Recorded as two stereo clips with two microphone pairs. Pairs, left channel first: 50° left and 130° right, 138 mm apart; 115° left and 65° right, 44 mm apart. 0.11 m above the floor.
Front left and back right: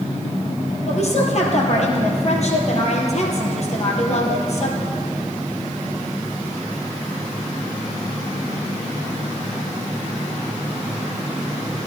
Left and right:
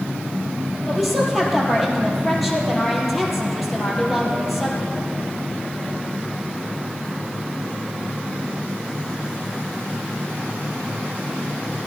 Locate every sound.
0.9 s a woman speaking: 25° left, 2.5 m